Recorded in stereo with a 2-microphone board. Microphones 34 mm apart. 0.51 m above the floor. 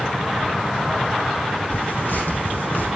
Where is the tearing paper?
85° left, 6 m.